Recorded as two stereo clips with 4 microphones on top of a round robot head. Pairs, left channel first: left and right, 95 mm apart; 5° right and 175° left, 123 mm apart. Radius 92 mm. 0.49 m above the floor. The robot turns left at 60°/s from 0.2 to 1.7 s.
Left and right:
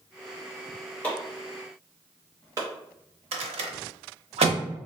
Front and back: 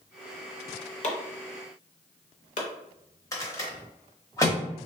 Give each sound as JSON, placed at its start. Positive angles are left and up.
{"t": 1.0, "sound": "chopping", "azimuth_deg": 15, "distance_m": 0.8}
{"t": 3.3, "sound": "a rattle", "azimuth_deg": -70, "distance_m": 0.6}